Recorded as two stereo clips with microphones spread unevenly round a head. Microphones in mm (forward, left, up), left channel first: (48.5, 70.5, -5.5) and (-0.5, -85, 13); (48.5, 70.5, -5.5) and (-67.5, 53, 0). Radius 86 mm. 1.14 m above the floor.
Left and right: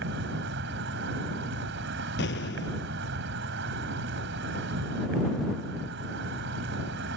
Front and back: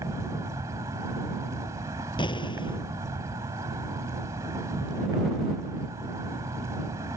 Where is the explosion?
55° left.